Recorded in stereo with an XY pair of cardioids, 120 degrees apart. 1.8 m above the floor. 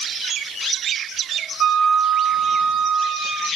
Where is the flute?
65° right, 3 m.